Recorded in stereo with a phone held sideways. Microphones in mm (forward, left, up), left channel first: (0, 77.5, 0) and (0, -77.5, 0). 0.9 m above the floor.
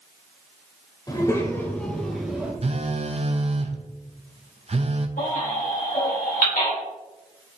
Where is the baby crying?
70° left (ahead or behind), 3.5 m.